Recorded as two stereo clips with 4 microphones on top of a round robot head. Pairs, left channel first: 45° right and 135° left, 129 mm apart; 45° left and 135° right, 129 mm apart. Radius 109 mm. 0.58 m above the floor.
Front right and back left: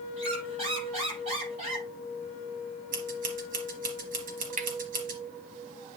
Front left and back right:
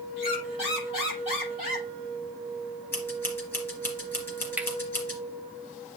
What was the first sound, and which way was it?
A squeak, 90° left.